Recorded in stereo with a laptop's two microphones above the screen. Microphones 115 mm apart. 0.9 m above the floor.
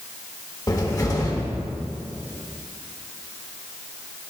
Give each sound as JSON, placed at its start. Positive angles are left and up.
{"t": 0.7, "sound": "a cupboard door", "side_deg": 35, "distance_m": 1.5}